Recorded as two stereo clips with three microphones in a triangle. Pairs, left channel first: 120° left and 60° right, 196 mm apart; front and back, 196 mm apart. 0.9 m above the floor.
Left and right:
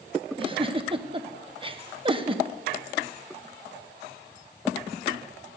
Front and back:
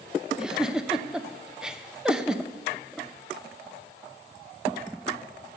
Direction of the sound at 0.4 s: 95° right.